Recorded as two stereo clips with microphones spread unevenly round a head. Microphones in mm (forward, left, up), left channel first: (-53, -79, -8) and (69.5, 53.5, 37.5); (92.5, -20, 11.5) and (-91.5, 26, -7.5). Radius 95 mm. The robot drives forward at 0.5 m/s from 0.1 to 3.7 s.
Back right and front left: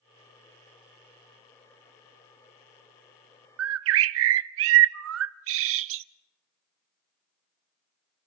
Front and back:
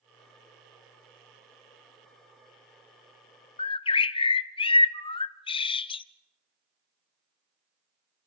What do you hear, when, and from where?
3.6 s a bird: 45° left, 0.5 m; by 6.0 s 50° left, 0.5 m